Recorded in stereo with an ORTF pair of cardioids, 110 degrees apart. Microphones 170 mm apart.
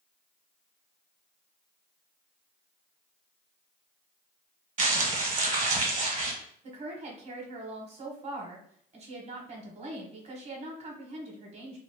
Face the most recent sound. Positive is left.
turn(degrees=-35)